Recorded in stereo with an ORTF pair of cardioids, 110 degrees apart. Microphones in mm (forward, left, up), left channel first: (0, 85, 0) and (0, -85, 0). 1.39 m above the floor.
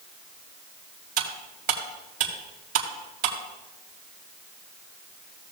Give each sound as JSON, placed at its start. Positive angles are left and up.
{"t": 1.2, "sound": "cutlery clinking", "azimuth_deg": -70, "distance_m": 2.5}